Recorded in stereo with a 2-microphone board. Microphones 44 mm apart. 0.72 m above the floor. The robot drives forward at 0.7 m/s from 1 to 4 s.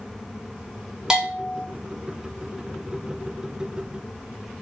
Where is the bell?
15° right (ahead or behind), 2.5 m; by 1.6 s 10° right (ahead or behind), 3 m.